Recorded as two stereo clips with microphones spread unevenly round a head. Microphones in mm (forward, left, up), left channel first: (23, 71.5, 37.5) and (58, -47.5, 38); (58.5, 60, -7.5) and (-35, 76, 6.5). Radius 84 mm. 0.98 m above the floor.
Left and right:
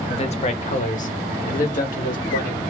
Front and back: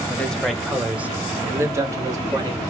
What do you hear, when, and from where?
0.1 s a man speaking: 65° left, 1.0 m; by 2.6 s 120° left, 1.7 m